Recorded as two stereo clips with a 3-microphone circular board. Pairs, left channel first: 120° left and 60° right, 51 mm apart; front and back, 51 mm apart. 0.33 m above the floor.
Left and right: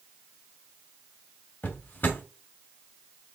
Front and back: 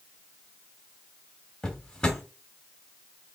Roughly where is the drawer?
Left.